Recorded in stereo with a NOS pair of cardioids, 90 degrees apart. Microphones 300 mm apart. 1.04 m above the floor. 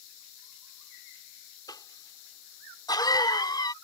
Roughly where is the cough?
Ahead.